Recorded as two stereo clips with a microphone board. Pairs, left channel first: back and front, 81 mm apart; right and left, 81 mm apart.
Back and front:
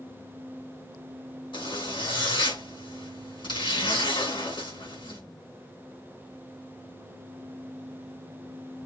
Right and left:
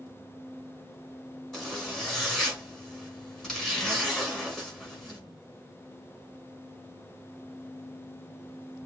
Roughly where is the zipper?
Behind.